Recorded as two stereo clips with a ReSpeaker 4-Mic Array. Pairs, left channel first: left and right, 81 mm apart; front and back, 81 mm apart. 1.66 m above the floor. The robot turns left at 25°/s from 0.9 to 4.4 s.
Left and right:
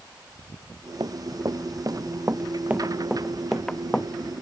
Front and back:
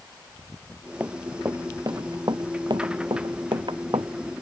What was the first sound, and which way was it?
Running footsteps, 115° right.